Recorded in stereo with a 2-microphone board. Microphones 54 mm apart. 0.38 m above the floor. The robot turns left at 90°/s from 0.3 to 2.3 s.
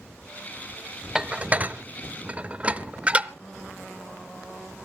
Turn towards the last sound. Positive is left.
turn(degrees=-25)  # may be behind; listen again after turning